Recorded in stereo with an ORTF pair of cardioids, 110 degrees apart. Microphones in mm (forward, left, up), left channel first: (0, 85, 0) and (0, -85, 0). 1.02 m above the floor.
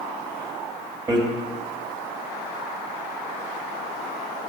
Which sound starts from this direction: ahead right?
Hammering, at 1.1 s.